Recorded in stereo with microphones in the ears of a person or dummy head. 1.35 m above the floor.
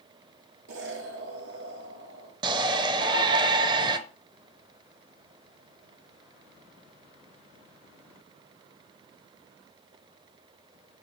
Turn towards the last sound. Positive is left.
turn(degrees=-30)  # may be behind; listen again after turning